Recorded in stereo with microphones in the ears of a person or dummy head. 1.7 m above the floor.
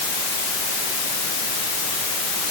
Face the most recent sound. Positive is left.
No sound to turn to.